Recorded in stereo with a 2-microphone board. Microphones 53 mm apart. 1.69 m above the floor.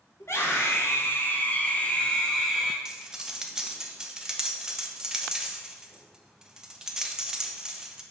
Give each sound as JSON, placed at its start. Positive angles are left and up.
{"t": 0.2, "sound": "a scream", "side_deg": 60, "distance_m": 2.0}
{"t": 2.9, "sound": "cutlery clinking", "side_deg": -15, "distance_m": 0.9}